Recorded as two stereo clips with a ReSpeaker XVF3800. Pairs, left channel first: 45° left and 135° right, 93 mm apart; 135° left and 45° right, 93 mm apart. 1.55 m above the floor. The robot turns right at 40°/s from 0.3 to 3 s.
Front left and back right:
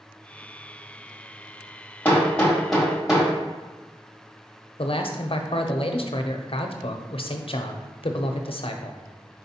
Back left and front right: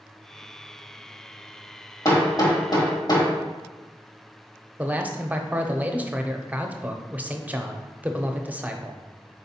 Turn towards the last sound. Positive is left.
turn(degrees=30)